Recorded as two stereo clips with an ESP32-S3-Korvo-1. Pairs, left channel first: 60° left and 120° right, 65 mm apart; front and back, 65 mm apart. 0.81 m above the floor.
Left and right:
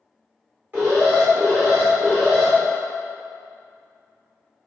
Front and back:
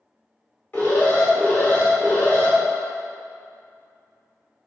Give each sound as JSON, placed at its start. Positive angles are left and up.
{"t": 0.7, "sound": "an alarm", "azimuth_deg": -60, "distance_m": 1.4}